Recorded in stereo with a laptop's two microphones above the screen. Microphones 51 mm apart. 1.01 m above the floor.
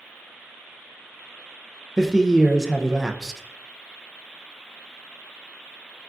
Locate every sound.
2.0 s a man speaking: 5° right (ahead or behind), 0.5 m